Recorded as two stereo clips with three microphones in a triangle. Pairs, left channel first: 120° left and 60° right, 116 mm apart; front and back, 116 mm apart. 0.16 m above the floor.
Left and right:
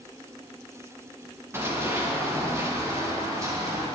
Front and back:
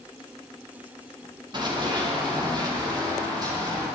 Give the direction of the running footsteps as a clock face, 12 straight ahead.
4 o'clock.